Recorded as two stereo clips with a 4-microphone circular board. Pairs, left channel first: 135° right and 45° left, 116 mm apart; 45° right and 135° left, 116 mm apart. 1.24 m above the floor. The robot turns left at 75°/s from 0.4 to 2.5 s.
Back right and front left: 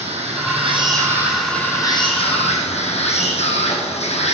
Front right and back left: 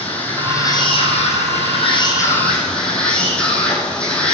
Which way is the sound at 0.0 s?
30° left.